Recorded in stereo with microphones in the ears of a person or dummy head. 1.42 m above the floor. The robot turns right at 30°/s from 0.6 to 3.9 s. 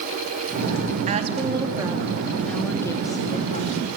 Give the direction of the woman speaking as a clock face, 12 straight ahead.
1 o'clock.